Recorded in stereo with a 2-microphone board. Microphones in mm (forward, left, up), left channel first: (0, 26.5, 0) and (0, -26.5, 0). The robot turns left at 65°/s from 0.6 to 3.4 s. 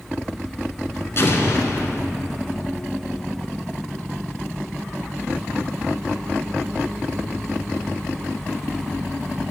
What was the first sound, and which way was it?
An explosion, 120° left.